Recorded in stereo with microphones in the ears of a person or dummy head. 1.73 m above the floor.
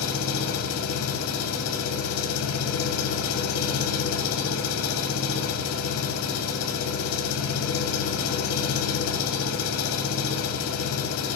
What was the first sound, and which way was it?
An engine running, 60° left (ahead or behind).